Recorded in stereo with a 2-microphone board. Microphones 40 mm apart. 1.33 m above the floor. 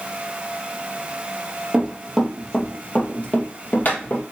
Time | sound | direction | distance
1.7 | running footsteps | 10° right (ahead or behind) | 2 m